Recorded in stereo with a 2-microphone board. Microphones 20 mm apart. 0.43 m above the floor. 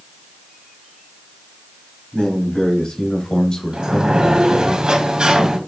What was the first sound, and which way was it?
A man speaking, 60° left (ahead or behind).